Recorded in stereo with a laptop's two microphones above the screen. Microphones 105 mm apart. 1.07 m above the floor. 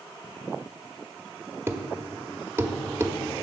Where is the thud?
25° right (ahead or behind), 0.8 m.